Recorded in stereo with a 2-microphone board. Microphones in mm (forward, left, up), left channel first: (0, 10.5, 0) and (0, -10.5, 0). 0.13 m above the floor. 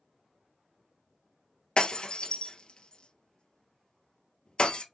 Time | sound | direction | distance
1.8 | breaking glass | 45° left (ahead or behind) | 1.2 m